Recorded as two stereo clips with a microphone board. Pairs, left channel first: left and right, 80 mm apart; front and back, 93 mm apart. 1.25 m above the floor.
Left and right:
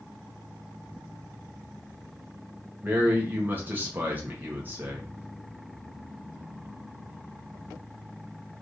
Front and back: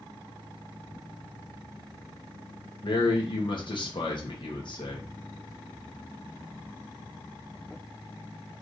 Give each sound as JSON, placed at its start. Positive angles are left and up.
{"t": 2.8, "sound": "a man speaking", "azimuth_deg": -25, "distance_m": 1.6}